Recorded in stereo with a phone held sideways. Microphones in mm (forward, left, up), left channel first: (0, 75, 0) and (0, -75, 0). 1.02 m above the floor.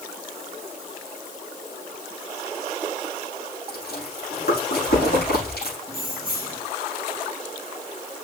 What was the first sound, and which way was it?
Chewing, 85° left.